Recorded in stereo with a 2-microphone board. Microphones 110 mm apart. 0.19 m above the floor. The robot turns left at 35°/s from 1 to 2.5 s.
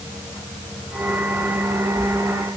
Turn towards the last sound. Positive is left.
No sound to turn to.